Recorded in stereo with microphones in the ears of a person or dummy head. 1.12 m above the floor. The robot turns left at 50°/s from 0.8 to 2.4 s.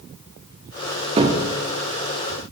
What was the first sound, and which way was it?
A cupboard door, 30° right (ahead or behind).